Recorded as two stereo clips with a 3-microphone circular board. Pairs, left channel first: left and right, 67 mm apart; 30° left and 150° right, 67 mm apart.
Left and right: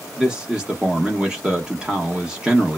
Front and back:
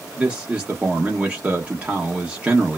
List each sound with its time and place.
0.2 s a man speaking: 145° right, 0.8 m